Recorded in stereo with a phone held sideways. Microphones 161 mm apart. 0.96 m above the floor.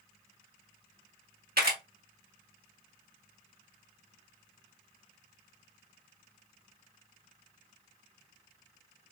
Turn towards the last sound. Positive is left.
turn(degrees=-75)  # may be behind; listen again after turning